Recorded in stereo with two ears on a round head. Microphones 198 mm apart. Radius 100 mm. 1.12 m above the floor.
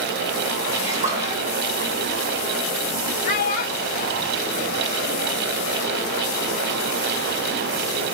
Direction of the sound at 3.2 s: 45° left (ahead or behind).